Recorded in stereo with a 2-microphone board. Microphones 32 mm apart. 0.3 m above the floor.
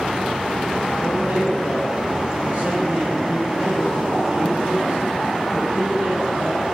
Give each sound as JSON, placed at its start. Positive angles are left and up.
{"t": 1.0, "sound": "a man speaking", "side_deg": -45, "distance_m": 4.5}